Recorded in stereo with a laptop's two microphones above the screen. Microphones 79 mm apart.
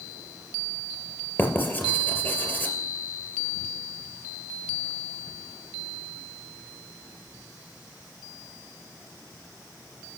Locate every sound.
1.4 s writing: 25° left (ahead or behind), 3 m